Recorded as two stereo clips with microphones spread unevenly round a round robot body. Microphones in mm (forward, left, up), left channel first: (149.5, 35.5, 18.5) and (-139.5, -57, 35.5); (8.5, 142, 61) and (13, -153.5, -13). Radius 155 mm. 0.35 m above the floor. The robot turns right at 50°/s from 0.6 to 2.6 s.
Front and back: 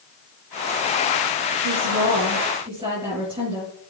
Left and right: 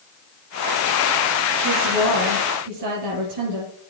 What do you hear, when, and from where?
1.6 s a woman speaking: 135° right, 5.5 m; by 3.7 s 90° right, 5.5 m